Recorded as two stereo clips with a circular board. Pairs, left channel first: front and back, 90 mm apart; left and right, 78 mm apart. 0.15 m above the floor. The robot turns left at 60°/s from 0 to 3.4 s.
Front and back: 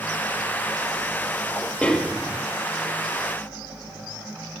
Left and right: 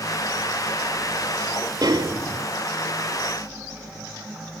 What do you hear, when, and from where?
1.8 s a snare drum: 75° right, 1.3 m; by 2.5 s 110° right, 1.3 m